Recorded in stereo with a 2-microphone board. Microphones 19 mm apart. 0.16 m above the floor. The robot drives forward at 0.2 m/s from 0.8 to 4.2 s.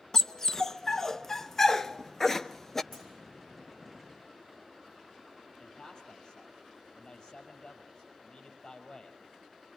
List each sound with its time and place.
0.1 s a dog barking: 20° left (ahead or behind), 0.8 m; by 2.8 s 15° left (ahead or behind), 1.2 m
2.9 s a clunk: 5° left (ahead or behind), 8.5 m
5.6 s a man speaking: 30° left (ahead or behind), 4.5 m